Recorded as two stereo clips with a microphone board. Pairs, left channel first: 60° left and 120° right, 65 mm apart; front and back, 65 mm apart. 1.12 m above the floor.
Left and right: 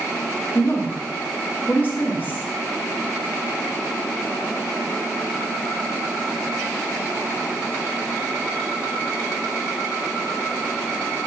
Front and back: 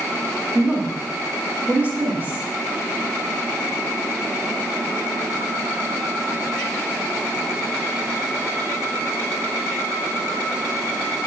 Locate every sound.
0.6 s a woman speaking: 115° left, 2.5 m